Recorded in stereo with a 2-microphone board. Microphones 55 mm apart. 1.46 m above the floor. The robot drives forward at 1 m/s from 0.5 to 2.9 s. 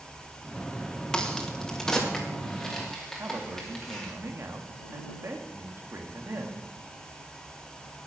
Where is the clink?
I don't hear a clink.